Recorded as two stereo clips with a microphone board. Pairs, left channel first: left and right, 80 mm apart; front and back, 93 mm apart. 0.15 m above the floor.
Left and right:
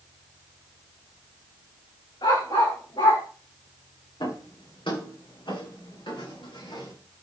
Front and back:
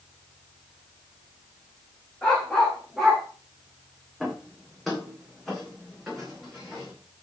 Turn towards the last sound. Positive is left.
turn(degrees=90)